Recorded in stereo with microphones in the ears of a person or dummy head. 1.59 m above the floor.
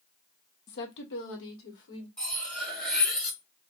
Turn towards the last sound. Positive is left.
turn(degrees=10)  # may be behind; listen again after turning